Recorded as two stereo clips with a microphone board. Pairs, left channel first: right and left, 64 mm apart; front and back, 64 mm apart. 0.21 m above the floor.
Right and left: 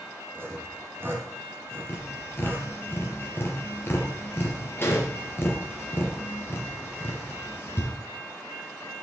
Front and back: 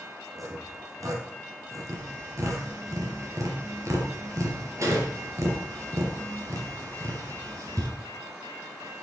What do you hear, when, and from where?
0.3 s sawing: 145° left, 1.9 m
1.9 s tapping: 145° right, 3.5 m